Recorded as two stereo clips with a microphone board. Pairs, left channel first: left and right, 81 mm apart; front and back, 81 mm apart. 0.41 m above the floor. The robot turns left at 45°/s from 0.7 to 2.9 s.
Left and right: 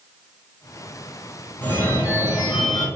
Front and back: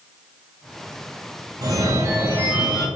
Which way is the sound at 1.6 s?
155° left.